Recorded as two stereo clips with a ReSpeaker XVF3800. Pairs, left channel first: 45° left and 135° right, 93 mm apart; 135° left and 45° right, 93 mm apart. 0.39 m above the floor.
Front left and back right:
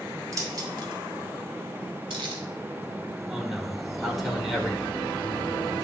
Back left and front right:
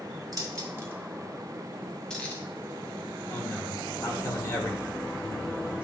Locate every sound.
0.3 s keys jangling: 85° right, 1.4 m; by 2.4 s 150° right, 1.9 m
3.3 s a man speaking: 135° left, 1.3 m